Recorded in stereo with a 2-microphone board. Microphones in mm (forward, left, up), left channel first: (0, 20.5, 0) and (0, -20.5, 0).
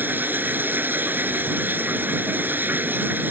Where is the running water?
55° right (ahead or behind).